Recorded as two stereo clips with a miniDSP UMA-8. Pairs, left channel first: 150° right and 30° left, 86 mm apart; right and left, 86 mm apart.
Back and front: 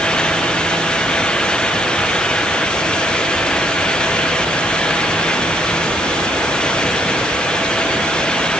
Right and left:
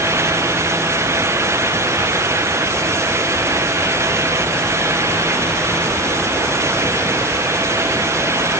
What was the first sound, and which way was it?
Only background noise.